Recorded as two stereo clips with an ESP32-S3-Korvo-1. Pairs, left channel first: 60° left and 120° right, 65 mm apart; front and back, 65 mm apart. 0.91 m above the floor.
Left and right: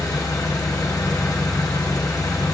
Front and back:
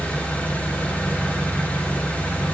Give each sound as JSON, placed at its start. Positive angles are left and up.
{"t": 0.0, "sound": "an engine running", "azimuth_deg": 65, "distance_m": 1.2}